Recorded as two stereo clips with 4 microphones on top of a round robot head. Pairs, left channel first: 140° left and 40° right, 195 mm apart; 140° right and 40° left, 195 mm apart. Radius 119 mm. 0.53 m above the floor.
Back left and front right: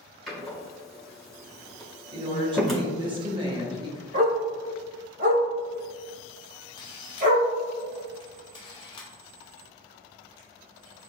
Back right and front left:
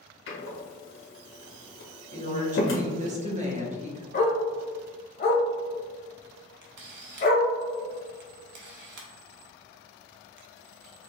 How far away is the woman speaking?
About 1.1 m.